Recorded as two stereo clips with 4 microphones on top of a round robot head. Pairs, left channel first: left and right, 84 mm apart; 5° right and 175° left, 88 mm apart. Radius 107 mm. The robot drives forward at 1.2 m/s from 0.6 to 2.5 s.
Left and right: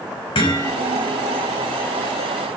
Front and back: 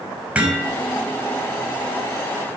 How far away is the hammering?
About 5.5 m.